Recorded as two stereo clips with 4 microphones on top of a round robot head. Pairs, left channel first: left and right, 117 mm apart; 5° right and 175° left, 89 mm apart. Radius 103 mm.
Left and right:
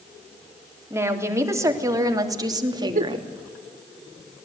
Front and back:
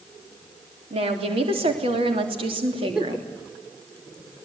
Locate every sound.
0.9 s a woman speaking: 160° right, 3.5 m; by 3.3 s 140° right, 2.5 m
3.0 s a giggle: 100° right, 1.0 m